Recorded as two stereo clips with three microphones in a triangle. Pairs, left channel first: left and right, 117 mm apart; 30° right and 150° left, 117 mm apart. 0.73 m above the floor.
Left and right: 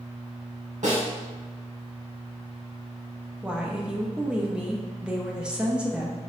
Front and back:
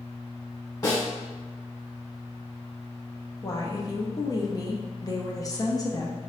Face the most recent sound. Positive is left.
turn(degrees=-15)